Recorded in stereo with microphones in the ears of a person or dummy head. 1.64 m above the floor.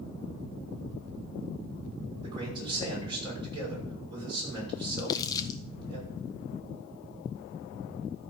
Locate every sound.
2.2 s a man speaking: 25° right (ahead or behind), 6 m
5.0 s crumpling: 25° left (ahead or behind), 0.9 m